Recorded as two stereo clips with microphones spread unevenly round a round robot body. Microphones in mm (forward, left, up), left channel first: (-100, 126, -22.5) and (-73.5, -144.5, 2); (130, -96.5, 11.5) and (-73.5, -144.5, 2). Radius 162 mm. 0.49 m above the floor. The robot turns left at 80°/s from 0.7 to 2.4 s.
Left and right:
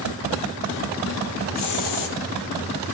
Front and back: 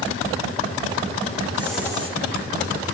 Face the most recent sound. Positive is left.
turn(degrees=55)